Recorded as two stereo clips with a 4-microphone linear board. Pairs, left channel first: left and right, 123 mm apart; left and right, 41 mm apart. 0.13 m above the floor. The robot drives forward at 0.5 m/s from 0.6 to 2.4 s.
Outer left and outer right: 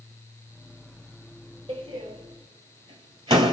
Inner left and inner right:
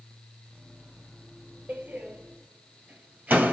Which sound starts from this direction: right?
A door slam, at 1.7 s.